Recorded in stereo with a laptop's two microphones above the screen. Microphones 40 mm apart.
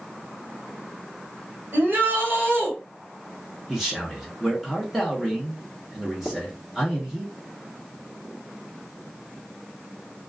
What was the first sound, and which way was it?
A shout, 45° right (ahead or behind).